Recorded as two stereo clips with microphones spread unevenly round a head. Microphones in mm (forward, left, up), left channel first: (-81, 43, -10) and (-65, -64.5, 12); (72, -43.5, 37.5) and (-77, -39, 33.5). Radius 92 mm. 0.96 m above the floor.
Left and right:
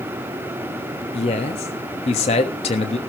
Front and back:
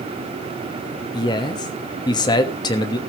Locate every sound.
1.1 s a man speaking: 65° left, 1.2 m